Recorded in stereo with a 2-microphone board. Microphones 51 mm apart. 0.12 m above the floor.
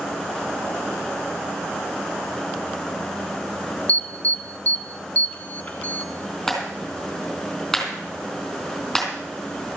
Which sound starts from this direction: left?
An alarm, at 3.9 s.